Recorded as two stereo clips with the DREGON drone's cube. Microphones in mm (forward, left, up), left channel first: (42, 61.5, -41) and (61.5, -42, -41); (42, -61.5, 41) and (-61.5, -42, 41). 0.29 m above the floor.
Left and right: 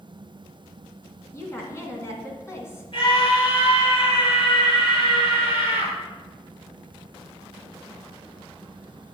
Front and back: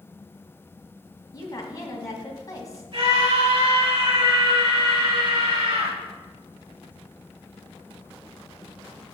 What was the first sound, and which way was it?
A woman speaking, 40° left.